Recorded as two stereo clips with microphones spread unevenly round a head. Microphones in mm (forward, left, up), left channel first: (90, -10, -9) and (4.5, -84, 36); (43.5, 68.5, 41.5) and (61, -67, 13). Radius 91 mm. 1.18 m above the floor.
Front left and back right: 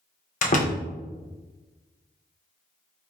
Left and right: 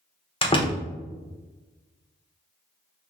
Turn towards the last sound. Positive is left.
turn(degrees=40)